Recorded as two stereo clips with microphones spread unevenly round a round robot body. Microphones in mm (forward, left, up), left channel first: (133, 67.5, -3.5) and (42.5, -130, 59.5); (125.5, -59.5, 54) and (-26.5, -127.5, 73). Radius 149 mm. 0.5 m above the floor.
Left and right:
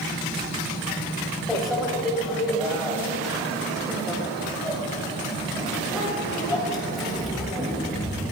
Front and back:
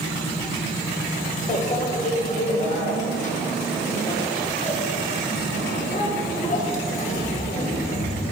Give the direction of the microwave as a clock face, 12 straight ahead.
1 o'clock.